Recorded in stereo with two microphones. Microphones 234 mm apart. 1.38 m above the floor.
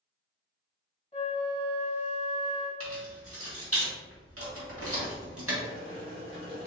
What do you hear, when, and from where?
1.1 s a flute: 25° left (ahead or behind), 1.6 m
2.8 s keys jangling: 70° right (ahead or behind), 1.8 m
5.6 s boiling: 60° right (ahead or behind), 1.5 m